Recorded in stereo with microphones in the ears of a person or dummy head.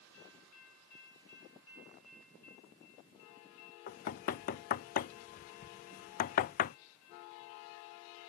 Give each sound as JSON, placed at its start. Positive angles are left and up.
{"t": 3.9, "sound": "knocking", "side_deg": 45}